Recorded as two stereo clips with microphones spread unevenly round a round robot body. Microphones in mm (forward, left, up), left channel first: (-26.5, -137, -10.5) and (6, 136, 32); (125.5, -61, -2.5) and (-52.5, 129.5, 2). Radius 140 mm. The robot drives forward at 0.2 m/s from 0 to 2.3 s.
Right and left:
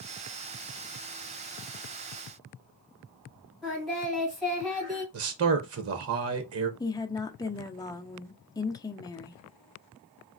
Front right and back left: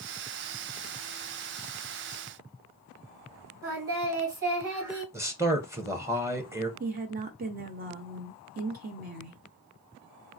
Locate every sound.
3.6 s singing: 170° left, 3 m
5.1 s a man speaking: 55° left, 0.6 m
6.8 s a woman speaking: 170° right, 0.5 m